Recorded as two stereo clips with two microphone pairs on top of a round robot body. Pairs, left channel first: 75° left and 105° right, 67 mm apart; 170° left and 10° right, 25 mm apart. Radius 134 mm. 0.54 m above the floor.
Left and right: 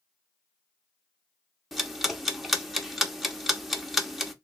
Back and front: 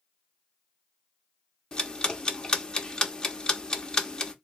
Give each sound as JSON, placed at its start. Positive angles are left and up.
{"t": 1.7, "sound": "ticking", "azimuth_deg": 180, "distance_m": 1.0}